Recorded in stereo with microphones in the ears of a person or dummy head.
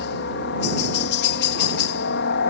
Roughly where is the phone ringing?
I don't hear a phone ringing.